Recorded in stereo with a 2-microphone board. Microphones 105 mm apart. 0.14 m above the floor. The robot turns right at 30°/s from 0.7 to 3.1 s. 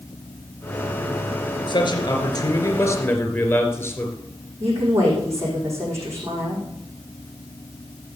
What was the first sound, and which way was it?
A man speaking, 110° left.